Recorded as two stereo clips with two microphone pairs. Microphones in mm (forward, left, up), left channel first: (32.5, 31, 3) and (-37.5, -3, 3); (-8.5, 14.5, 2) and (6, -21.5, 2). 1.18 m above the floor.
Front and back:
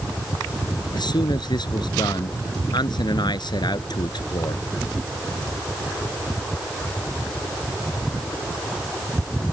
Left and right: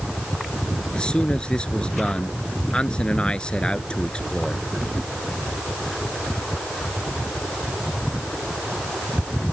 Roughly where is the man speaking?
Ahead left.